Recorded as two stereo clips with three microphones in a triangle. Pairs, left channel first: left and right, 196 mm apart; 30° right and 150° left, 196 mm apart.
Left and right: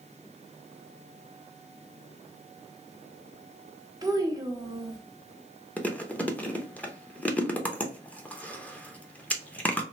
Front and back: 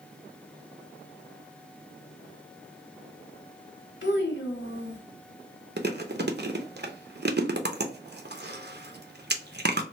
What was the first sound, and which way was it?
A child speaking, 20° right.